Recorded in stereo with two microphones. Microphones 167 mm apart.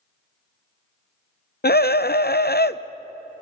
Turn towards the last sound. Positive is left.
turn(degrees=70)  # may be behind; listen again after turning